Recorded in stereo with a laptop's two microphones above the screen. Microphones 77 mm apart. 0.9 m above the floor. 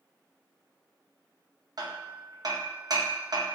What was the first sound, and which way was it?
Hammering, 60° right (ahead or behind).